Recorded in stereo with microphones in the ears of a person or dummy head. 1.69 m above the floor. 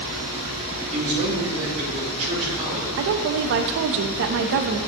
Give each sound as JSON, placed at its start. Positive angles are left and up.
{"t": 0.9, "sound": "a man speaking", "side_deg": -40, "distance_m": 2.5}
{"t": 3.0, "sound": "a woman speaking", "side_deg": -60, "distance_m": 0.5}